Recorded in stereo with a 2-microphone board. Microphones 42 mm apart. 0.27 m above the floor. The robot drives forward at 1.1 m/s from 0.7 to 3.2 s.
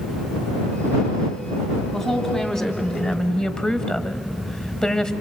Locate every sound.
1.9 s a woman speaking: 15° left (ahead or behind), 2.0 m; by 5.1 s 25° left (ahead or behind), 1.2 m